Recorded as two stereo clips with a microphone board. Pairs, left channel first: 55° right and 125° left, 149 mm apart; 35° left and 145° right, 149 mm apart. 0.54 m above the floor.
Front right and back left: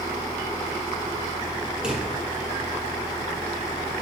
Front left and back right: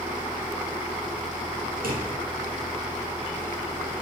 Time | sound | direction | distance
1.8 | a drawer | 150° right | 3.5 m